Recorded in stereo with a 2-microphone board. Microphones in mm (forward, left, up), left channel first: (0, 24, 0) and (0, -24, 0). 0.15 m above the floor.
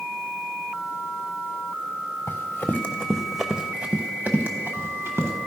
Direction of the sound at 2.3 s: 55° left (ahead or behind).